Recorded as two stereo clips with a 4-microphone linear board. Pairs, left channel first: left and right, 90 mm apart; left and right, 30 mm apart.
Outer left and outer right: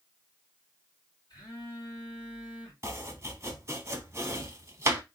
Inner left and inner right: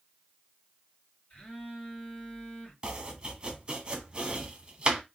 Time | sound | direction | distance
1.3 | a phone buzzing | 50° left (ahead or behind) | 2.5 m
2.8 | chopping | 30° right (ahead or behind) | 0.9 m